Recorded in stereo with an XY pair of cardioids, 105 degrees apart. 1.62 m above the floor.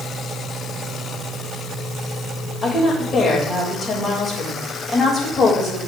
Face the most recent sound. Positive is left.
turn(degrees=35)